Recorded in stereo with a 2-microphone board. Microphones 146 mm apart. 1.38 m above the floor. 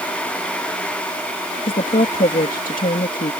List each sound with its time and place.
1.7 s a woman speaking: 70° left (ahead or behind)